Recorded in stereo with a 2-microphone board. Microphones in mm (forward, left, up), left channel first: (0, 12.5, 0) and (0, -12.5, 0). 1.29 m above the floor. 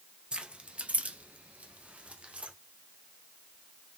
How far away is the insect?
I don't hear an insect.